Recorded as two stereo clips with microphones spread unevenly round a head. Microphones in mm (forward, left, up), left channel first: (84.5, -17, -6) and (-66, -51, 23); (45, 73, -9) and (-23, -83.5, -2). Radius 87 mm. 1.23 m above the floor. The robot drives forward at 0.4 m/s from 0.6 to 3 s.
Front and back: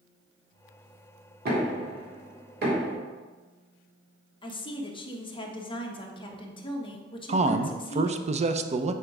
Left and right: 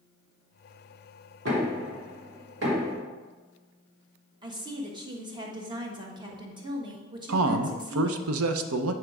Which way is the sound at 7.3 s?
120° right.